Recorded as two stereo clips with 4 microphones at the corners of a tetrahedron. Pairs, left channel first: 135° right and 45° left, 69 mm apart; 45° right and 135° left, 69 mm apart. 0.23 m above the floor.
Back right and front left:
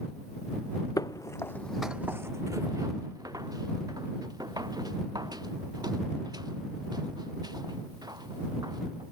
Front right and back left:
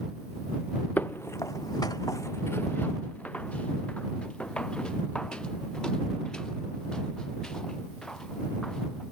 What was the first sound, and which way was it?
Footsteps, 105° right.